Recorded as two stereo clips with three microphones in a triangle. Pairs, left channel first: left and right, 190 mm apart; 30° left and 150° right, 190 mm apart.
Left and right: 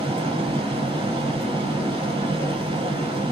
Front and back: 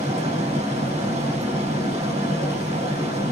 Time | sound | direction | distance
0.0 | running water | 125° right | 1.5 m